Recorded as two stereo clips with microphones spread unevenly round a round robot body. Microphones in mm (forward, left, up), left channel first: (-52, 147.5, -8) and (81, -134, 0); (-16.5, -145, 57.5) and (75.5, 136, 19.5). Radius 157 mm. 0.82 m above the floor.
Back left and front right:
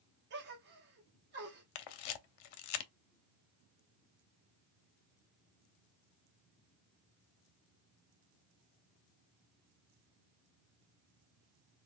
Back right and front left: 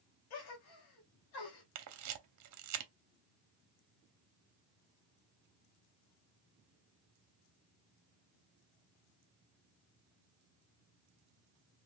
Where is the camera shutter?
115° left, 0.6 m.